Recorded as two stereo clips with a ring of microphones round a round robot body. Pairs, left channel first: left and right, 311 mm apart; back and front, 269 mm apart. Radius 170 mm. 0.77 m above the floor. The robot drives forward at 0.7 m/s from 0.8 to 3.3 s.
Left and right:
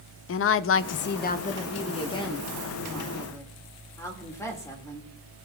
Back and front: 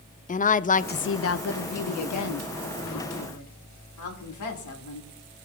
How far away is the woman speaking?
About 0.5 m.